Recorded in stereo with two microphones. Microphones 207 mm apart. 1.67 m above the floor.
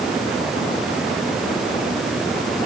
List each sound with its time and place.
Only background noise.